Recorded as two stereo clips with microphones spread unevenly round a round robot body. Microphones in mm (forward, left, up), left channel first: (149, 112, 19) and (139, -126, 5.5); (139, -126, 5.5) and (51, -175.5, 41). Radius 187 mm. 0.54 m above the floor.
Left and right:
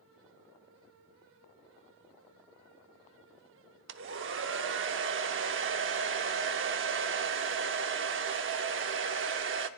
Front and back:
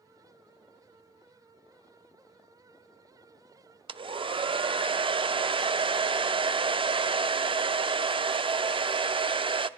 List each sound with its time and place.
3.9 s a hair dryer: 105° right, 0.6 m